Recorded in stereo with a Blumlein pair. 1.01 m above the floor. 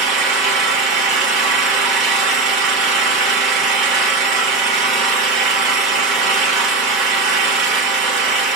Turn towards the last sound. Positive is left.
turn(degrees=-30)